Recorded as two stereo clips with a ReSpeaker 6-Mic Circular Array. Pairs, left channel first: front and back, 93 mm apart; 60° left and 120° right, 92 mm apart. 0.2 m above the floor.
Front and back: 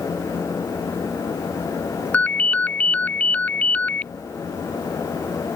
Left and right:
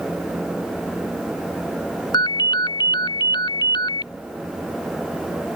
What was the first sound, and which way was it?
A ringtone, 70° left.